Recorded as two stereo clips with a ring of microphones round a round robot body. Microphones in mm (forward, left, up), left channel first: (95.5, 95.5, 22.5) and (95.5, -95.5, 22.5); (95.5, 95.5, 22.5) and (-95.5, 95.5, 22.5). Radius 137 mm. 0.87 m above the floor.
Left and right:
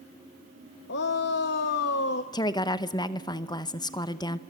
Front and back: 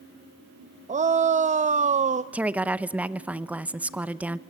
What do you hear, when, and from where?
0.9 s a shout: 125° left, 0.7 m
2.3 s a woman speaking: 110° left, 0.8 m